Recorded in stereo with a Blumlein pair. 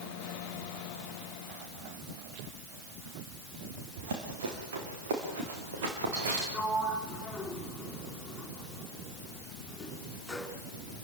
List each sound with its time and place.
4.0 s running footsteps: 55° right, 5 m; by 6.4 s 60° right, 6.5 m
6.5 s a sliding door: 5° left, 4 m